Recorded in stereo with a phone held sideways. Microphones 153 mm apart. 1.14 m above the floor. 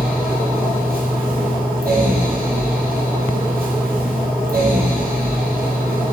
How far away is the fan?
About 1.8 m.